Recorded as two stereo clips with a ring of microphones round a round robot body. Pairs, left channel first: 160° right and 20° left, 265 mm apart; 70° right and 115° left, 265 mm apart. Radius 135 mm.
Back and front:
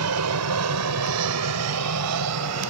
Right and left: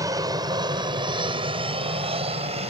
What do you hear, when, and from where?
0.0 s an aircraft: 35° left; by 2.7 s 45° left